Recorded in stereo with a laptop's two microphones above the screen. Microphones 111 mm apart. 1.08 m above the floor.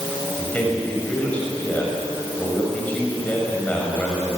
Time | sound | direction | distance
0.4 | a man speaking | 15° left (ahead or behind) | 6.5 m